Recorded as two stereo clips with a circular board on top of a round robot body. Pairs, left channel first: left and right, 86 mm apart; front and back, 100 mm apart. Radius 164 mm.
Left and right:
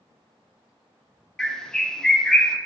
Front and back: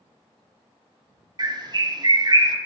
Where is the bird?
170° left, 1.0 m.